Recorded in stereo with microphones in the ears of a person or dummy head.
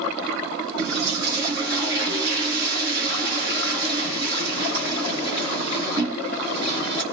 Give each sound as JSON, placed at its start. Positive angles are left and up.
{"t": 0.8, "sound": "a toilet flushing", "side_deg": -55, "distance_m": 4.5}